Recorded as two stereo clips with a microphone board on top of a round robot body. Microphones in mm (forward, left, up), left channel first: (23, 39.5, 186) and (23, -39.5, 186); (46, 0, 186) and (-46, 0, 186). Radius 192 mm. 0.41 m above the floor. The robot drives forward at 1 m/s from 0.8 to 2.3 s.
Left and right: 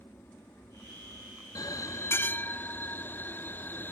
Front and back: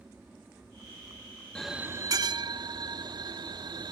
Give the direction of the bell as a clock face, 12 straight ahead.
9 o'clock.